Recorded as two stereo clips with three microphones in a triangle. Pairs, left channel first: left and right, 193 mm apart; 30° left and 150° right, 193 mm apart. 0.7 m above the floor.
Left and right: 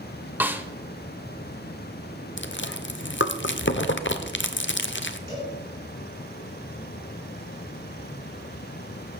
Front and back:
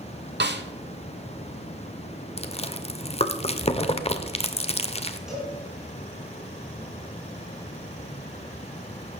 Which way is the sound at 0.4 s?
170° right.